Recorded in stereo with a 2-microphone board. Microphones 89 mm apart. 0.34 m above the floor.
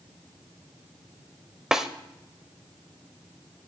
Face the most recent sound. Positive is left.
turn(degrees=-5)  # may be behind; listen again after turning